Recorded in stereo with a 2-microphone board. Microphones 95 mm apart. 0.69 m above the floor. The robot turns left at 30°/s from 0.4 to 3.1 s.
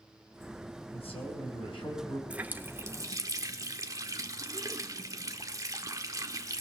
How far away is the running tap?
About 1.1 m.